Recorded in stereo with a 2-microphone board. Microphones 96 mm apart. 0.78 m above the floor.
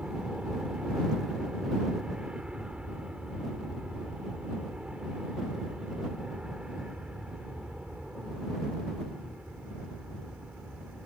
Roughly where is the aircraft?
Centre.